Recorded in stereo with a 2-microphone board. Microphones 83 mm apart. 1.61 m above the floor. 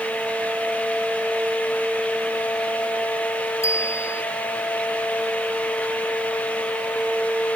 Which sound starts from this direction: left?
A bicycle bell, at 3.6 s.